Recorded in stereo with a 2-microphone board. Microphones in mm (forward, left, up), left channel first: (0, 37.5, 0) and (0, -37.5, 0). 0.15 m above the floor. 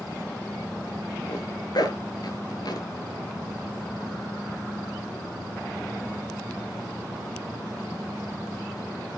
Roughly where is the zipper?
Left.